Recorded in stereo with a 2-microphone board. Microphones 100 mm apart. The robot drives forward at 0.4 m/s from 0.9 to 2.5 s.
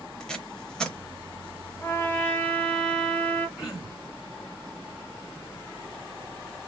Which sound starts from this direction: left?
A trumpet, at 1.8 s.